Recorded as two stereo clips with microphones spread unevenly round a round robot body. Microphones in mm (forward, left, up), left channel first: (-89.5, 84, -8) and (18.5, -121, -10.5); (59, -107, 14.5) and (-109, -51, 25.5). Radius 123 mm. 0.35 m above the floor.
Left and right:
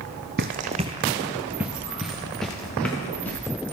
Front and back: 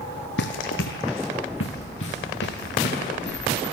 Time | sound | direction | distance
0.4 | running footsteps | 15° right | 0.6 m